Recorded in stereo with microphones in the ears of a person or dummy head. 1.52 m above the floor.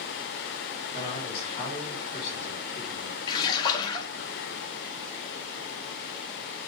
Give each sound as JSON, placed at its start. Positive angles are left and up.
{"t": 0.9, "sound": "a man speaking", "side_deg": 15, "distance_m": 6.0}
{"t": 3.3, "sound": "a splash", "side_deg": 25, "distance_m": 1.4}